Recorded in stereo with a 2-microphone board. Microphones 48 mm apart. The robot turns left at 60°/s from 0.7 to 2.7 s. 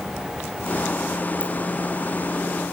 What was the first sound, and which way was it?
A ringtone, 30° left (ahead or behind).